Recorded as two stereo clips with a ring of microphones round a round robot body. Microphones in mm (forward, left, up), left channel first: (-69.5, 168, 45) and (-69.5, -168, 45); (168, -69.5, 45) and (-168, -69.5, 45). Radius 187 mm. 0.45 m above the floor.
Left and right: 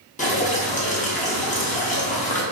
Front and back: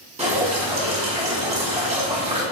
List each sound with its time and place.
0.2 s dripping: 135° left, 1.0 m